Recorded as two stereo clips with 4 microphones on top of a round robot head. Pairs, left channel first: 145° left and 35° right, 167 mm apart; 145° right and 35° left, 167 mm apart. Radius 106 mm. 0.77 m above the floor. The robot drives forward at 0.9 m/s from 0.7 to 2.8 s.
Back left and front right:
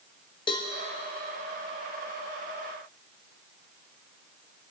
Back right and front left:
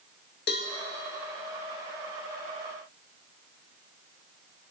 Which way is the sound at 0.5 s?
155° right.